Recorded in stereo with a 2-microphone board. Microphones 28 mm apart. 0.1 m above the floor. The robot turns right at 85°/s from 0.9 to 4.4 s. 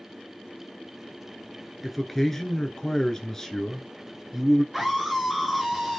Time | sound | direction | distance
1.8 | a man speaking | centre (ahead or behind) | 1.1 m
4.7 | a scream | 5° right (ahead or behind) | 1.4 m